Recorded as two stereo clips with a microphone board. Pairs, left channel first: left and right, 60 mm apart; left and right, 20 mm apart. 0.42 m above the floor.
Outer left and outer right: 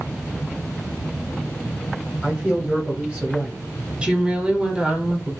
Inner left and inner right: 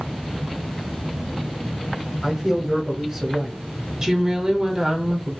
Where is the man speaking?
5° right (ahead or behind), 1.1 m.